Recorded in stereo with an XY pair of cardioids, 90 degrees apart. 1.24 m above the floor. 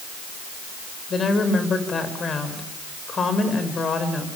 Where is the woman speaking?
50° left, 6 m.